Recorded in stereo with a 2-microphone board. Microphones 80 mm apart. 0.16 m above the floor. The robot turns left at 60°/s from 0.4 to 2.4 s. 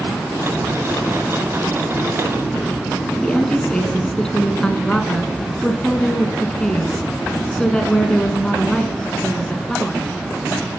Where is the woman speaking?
10° left (ahead or behind), 1.4 m.